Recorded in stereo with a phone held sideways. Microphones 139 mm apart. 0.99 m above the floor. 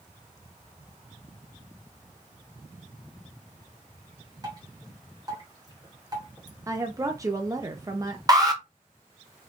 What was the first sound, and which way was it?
Dripping, 30° right (ahead or behind).